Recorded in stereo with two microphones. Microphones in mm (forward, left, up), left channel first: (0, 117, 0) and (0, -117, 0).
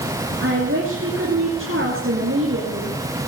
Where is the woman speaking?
55° right (ahead or behind), 2.5 m.